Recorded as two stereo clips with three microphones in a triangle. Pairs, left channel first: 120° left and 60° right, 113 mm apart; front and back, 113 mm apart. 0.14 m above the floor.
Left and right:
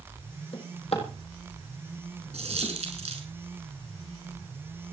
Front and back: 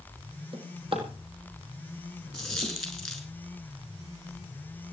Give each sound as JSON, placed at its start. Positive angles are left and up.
{"t": 0.5, "sound": "a drawer", "azimuth_deg": 145, "distance_m": 4.0}
{"t": 2.3, "sound": "a dropped coin", "azimuth_deg": -90, "distance_m": 6.0}